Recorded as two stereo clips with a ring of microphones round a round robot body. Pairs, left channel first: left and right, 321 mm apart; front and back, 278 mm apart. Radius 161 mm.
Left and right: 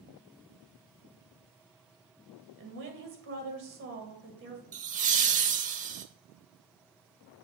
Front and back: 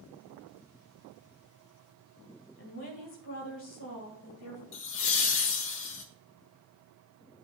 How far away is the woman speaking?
About 1.9 m.